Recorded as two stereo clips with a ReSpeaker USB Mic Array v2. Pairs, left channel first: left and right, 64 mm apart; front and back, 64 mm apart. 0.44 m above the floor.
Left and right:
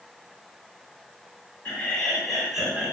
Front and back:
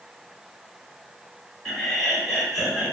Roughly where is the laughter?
Left.